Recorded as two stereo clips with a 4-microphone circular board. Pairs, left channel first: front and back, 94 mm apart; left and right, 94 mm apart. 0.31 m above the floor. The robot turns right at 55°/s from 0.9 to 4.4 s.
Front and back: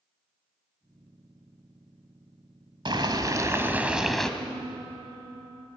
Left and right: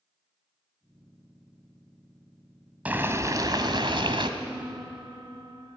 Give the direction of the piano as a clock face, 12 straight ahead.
6 o'clock.